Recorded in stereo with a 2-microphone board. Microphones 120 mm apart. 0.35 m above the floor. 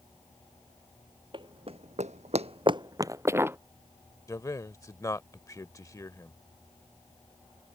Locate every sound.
1.3 s running footsteps: 40° right (ahead or behind); by 3.6 s 20° right (ahead or behind)
4.3 s a man speaking: 25° left (ahead or behind)